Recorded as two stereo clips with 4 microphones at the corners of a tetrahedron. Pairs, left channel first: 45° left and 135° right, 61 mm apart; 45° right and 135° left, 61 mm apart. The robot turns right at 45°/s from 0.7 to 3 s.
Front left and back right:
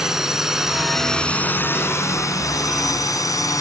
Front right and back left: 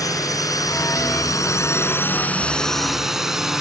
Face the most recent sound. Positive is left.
turn(degrees=55)